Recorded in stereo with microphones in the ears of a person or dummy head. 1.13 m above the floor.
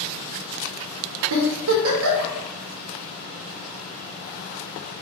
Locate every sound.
1.3 s a giggle: 75° right (ahead or behind), 0.8 m